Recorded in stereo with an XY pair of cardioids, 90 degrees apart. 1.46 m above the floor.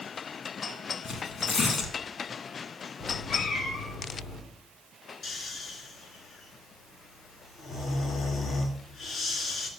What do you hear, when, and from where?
1.0 s tearing paper: 60° left, 1.9 m
3.0 s a cat meowing: 70° left, 2.5 m
5.2 s snoring: 65° left, 2.5 m